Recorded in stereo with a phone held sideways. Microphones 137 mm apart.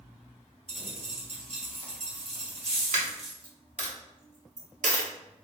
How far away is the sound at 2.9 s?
About 0.8 m.